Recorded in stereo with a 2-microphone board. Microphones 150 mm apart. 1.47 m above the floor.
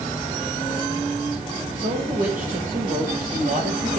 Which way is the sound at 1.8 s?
70° right (ahead or behind).